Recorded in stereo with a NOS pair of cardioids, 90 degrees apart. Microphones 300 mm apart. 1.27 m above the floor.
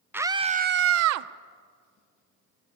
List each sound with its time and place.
0.1 s a scream: 5° right, 0.8 m; by 1.3 s 70° right, 0.7 m